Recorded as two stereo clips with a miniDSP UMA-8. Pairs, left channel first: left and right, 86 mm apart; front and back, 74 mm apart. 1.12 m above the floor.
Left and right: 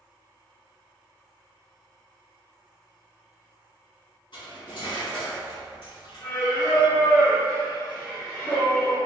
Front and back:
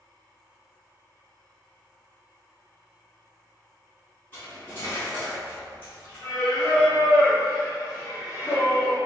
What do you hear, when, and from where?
4.3 s cutlery clinking: 65° left, 1.4 m
6.2 s singing: 30° left, 1.5 m